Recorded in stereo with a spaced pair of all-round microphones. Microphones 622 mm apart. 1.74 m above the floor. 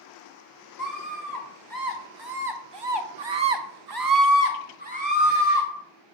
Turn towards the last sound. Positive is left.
turn(degrees=-5)  # may be behind; listen again after turning